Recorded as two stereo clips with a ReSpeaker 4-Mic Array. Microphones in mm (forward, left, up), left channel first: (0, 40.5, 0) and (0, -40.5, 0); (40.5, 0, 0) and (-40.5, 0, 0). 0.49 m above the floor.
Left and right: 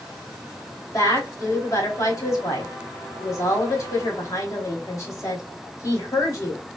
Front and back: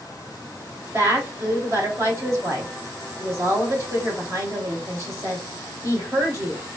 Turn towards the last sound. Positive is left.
turn(degrees=130)